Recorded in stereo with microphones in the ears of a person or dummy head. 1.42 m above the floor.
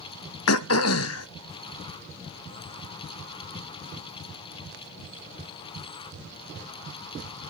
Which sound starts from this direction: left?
Throat clearing, at 0.5 s.